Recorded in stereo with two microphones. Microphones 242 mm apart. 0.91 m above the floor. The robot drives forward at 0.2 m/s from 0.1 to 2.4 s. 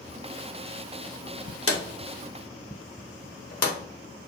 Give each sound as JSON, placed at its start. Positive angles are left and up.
{"t": 1.7, "sound": "a drawer", "side_deg": 65, "distance_m": 0.6}